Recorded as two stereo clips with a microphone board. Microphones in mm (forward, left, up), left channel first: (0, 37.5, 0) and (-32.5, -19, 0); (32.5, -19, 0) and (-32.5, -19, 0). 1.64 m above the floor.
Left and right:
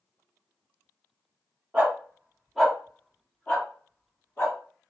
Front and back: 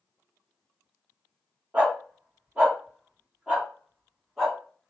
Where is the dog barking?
160° right, 1.2 m; by 4.6 s 95° left, 1.7 m.